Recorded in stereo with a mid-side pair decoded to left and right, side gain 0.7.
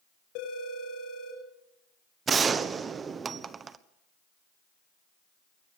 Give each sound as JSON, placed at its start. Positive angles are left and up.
{"t": 0.3, "sound": "a phone ringing", "azimuth_deg": 70, "distance_m": 6.5}
{"t": 2.3, "sound": "a gunshot", "azimuth_deg": -30, "distance_m": 1.2}